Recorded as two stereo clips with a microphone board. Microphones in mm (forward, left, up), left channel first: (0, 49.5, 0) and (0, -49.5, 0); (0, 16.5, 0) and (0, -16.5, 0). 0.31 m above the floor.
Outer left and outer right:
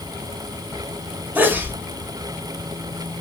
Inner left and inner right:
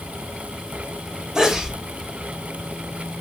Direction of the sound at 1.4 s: 20° right (ahead or behind).